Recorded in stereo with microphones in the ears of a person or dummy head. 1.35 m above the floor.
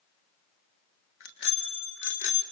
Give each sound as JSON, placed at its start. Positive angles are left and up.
{"t": 1.2, "sound": "a bicycle bell", "side_deg": 70, "distance_m": 3.5}